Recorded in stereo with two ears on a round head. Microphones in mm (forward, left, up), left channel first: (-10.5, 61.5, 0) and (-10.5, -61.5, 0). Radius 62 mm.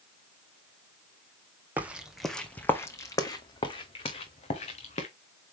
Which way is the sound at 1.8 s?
15° right (ahead or behind).